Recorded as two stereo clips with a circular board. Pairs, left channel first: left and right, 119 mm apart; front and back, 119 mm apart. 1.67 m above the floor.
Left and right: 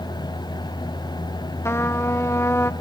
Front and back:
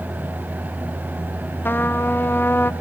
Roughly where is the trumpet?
Ahead left.